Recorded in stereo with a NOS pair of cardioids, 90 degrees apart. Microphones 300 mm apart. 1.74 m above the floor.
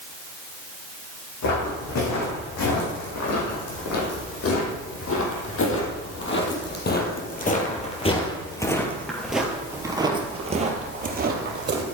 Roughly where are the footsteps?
Left.